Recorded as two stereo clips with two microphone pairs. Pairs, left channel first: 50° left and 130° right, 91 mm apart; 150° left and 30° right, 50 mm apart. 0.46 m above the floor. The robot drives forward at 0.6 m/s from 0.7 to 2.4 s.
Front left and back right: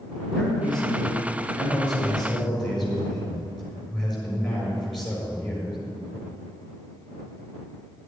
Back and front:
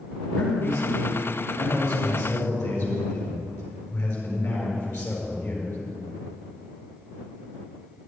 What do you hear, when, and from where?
0.3 s a man speaking: 135° left, 6 m; by 5.8 s 140° left, 7 m